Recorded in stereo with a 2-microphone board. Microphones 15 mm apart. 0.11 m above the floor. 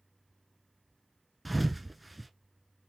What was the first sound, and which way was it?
A thud, 5° right (ahead or behind).